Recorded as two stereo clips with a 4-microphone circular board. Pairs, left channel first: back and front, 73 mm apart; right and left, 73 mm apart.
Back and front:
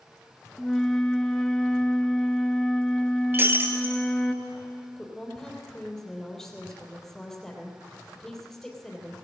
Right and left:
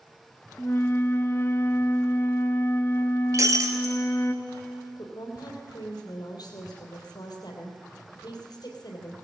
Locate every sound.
0.6 s a flute: 105° right, 0.8 m
3.3 s breaking glass: 55° left, 1.4 m
5.0 s a woman speaking: 95° right, 3 m